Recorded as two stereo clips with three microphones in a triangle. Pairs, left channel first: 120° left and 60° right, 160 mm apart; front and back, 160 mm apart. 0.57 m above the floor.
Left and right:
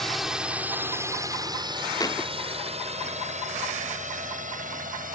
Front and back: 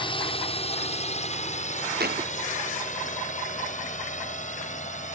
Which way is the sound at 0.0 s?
30° left.